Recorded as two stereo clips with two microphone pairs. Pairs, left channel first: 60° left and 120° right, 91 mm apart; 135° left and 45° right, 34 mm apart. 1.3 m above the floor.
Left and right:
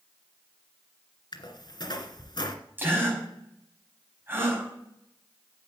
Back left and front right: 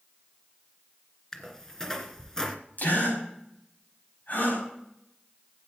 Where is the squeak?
65° left, 2 m.